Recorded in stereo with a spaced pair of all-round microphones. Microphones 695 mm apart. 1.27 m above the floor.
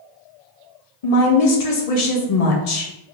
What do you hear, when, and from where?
1.0 s a woman speaking: 60° left (ahead or behind), 0.8 m